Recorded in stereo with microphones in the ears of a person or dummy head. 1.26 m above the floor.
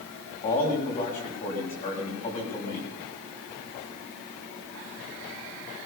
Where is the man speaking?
45° left (ahead or behind), 8 m.